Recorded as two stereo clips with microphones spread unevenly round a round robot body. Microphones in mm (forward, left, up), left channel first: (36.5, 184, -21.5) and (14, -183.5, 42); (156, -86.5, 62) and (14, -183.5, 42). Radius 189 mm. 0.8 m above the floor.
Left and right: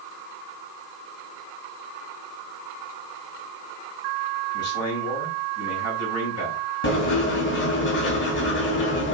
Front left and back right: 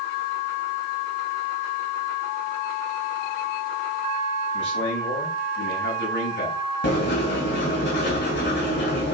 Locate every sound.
4.5 s a man speaking: 35° left, 6 m
6.8 s writing: 25° left, 3 m